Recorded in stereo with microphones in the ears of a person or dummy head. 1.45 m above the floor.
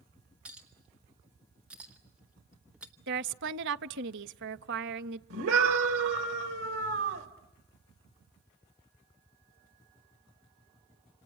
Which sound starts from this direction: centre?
A clink, at 0.5 s.